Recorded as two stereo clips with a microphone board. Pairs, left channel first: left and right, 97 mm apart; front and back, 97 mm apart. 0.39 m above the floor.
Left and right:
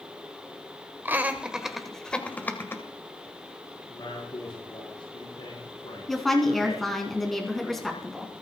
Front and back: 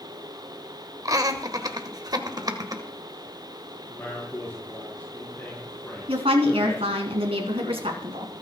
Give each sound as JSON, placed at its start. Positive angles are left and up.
{"t": 1.1, "sound": "laughter", "azimuth_deg": -150, "distance_m": 1.7}
{"t": 3.9, "sound": "a man speaking", "azimuth_deg": 70, "distance_m": 6.0}
{"t": 6.1, "sound": "a woman speaking", "azimuth_deg": 180, "distance_m": 3.5}